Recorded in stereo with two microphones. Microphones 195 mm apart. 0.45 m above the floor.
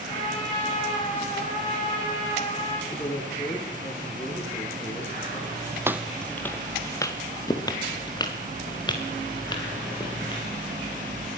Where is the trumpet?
30° left (ahead or behind), 8 m.